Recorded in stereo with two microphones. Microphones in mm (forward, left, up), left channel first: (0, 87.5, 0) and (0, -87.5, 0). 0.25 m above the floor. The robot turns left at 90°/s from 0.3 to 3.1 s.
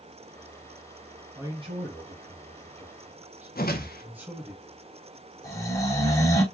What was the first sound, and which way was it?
A man speaking, 10° right.